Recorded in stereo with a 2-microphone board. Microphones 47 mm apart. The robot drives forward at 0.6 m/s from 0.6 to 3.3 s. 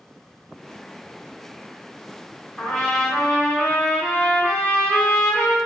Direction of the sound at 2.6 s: 15° left (ahead or behind).